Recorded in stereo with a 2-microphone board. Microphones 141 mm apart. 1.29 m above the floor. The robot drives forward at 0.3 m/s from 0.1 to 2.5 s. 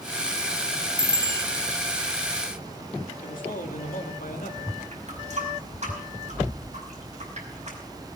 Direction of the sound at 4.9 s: 55° right (ahead or behind).